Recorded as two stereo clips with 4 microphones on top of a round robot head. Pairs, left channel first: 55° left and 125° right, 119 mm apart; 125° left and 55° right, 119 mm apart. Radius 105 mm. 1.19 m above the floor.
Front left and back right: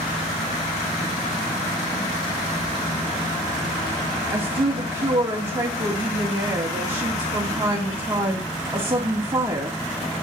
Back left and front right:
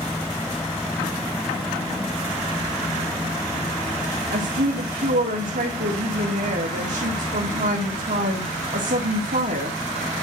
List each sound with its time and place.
4.3 s a woman speaking: 55° right, 2 m